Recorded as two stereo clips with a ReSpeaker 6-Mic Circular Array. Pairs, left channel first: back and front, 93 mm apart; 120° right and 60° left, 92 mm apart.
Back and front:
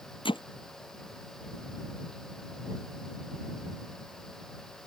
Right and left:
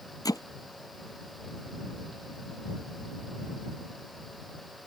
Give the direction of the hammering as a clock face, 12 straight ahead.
6 o'clock.